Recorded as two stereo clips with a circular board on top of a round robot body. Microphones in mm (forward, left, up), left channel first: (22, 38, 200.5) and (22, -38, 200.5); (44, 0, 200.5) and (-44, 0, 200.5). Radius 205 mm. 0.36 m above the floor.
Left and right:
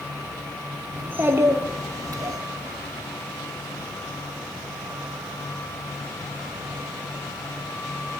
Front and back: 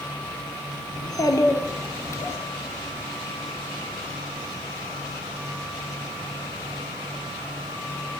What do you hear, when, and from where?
1.0 s a child speaking: 25° right, 1.3 m; by 2.4 s 60° right, 1.8 m